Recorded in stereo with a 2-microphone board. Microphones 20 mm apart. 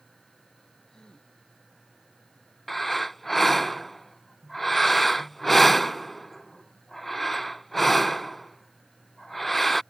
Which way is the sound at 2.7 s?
10° left (ahead or behind).